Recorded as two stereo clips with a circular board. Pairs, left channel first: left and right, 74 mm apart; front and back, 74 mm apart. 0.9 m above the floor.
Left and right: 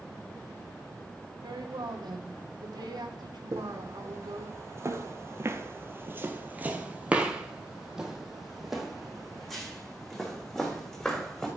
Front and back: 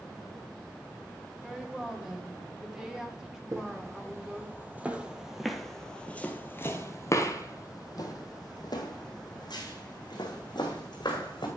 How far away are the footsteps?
About 1.6 m.